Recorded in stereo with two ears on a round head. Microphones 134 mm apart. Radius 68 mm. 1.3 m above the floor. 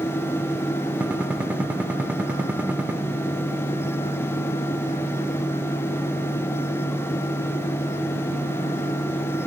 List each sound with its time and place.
1.0 s a gunshot: 10° right (ahead or behind), 1.1 m